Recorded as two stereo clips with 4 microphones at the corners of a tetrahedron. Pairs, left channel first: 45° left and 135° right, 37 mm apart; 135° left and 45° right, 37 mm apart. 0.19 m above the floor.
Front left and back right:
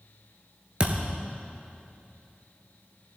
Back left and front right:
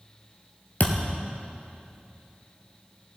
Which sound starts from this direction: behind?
A thud, at 0.8 s.